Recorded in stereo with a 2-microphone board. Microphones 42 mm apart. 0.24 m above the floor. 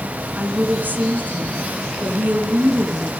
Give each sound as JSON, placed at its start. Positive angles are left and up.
{"t": 0.4, "sound": "a woman speaking", "side_deg": -50, "distance_m": 3.0}